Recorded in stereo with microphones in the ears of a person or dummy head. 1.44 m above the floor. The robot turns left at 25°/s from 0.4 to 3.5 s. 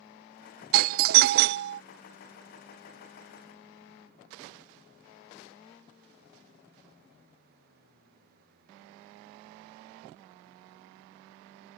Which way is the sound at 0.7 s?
45° right (ahead or behind).